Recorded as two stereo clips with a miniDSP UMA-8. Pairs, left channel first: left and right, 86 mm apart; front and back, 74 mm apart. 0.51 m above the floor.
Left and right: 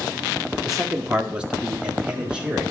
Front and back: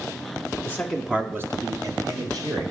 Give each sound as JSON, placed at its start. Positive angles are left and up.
{"t": 0.7, "sound": "a man speaking", "azimuth_deg": -10, "distance_m": 0.7}